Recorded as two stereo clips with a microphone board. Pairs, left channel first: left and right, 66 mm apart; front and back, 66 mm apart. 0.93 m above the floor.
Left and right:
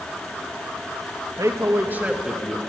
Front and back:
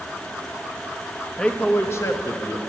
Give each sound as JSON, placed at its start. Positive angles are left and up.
{"t": 1.4, "sound": "a man speaking", "azimuth_deg": -75, "distance_m": 1.1}